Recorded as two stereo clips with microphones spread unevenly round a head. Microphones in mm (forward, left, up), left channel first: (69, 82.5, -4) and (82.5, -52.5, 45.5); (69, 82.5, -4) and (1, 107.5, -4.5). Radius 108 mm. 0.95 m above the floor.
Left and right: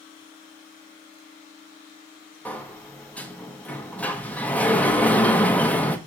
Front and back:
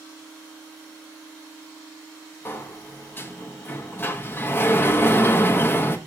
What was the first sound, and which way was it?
A sliding door, 35° left.